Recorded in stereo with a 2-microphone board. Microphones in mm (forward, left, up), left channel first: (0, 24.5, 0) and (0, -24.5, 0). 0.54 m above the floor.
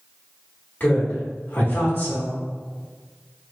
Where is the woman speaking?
40° left (ahead or behind), 1.5 m.